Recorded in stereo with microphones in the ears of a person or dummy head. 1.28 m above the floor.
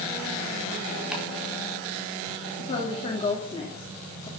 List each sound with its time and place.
1.1 s chopping: 5° right (ahead or behind), 4.5 m
2.6 s a woman speaking: 30° left (ahead or behind), 2.5 m